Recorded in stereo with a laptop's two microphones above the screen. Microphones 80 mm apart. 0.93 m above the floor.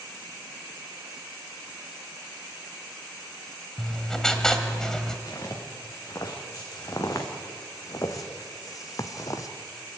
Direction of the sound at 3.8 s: 10° left (ahead or behind).